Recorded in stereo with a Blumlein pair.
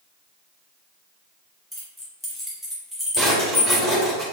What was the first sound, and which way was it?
Keys jangling, straight ahead.